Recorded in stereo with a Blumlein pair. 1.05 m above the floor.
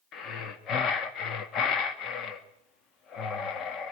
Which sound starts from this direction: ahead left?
Breathing, at 0.1 s.